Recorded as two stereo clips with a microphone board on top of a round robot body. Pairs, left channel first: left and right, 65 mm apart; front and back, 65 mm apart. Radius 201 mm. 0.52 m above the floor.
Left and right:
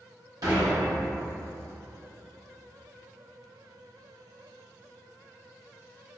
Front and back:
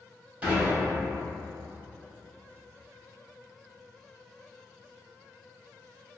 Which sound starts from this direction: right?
Dishes clattering, at 0.4 s.